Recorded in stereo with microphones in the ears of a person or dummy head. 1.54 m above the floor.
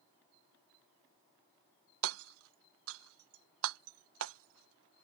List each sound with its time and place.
2.0 s hammering: 75° right (ahead or behind)